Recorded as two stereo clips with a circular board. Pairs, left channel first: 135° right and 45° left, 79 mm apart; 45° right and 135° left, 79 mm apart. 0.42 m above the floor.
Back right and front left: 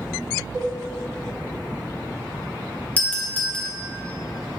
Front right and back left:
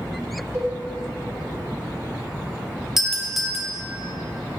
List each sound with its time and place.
0.5 s a cowbell: 170° right, 2 m
3.0 s a doorbell: 155° right, 1.2 m